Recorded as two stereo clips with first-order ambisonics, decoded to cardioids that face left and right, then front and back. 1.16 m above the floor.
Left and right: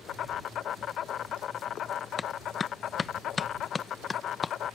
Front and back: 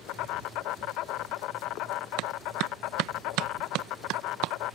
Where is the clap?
160° left.